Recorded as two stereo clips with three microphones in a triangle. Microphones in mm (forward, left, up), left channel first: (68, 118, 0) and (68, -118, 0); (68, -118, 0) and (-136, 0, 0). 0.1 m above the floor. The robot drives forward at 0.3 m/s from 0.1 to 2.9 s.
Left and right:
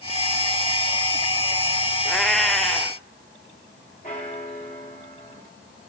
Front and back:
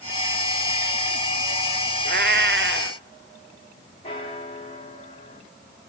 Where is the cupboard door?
I don't hear a cupboard door.